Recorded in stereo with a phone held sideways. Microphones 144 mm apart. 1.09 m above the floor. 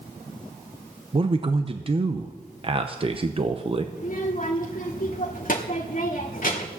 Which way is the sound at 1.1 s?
35° right (ahead or behind).